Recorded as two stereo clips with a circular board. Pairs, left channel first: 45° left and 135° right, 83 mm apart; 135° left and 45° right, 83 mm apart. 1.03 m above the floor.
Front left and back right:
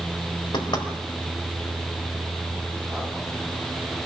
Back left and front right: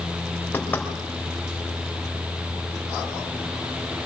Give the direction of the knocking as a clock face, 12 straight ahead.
10 o'clock.